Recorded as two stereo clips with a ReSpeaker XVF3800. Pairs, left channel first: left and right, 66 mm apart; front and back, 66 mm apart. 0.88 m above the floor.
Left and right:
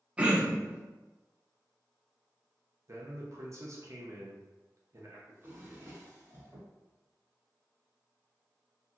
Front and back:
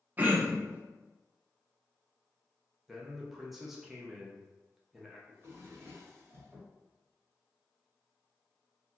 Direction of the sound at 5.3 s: 135° right.